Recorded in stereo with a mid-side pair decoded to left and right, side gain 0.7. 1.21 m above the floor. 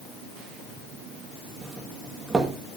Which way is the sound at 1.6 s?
20° right.